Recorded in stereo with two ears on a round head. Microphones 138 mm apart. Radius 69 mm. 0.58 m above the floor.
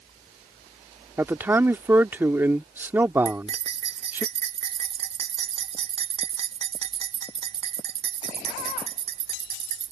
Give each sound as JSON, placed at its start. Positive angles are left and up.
{"t": 1.2, "sound": "a man speaking", "side_deg": -15}
{"t": 3.2, "sound": "cutlery clinking", "side_deg": -45}